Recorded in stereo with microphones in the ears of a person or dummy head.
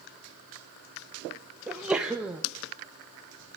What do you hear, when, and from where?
1.7 s a sneeze: 10° right (ahead or behind), 0.7 m